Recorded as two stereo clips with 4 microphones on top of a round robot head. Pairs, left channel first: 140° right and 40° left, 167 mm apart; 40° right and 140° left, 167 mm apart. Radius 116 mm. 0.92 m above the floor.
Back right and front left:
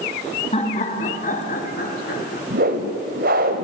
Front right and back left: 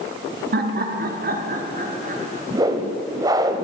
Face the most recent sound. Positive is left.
turn(degrees=75)